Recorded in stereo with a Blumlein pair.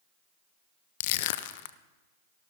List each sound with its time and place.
1.0 s crushing: 50° left, 0.5 m